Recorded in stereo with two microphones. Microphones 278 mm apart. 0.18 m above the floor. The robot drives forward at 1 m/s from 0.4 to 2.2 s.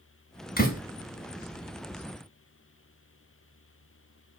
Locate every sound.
0.6 s a door slam: 35° left (ahead or behind), 1.6 m; by 0.8 s 30° left (ahead or behind), 1.7 m